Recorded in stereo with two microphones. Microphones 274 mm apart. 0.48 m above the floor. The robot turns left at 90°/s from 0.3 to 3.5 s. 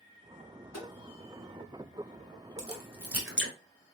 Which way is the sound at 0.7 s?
80° left.